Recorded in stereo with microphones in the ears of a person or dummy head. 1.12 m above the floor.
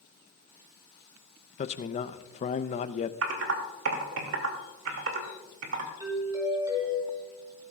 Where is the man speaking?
35° left (ahead or behind), 0.6 m.